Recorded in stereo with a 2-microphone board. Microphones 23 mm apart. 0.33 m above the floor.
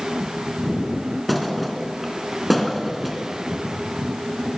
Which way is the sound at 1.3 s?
Centre (ahead or behind).